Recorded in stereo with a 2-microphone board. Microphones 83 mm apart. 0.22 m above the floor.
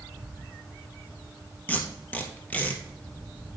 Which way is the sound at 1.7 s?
15° left (ahead or behind).